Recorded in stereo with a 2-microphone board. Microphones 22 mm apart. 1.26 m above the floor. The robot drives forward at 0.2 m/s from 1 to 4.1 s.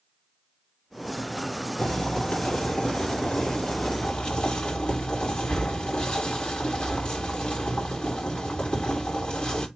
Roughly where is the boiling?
Left.